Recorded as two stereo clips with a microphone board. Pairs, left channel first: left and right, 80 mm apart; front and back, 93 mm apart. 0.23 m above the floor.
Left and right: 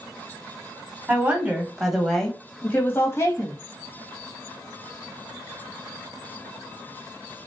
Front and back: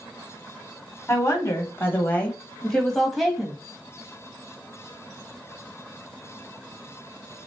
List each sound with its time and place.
1.1 s a woman speaking: 35° right, 1.3 m; by 3.6 s 100° left, 1.4 m